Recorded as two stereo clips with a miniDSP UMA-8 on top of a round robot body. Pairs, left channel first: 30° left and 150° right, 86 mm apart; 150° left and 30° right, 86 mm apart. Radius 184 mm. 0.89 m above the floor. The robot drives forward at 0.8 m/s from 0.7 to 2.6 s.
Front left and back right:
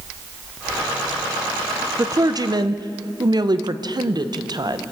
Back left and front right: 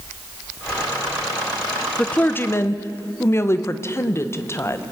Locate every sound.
2.0 s a woman speaking: 135° right, 0.9 m; by 4.8 s 160° right, 1.2 m